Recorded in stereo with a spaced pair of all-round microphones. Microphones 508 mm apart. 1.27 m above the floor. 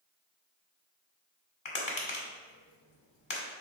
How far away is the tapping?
About 1.1 m.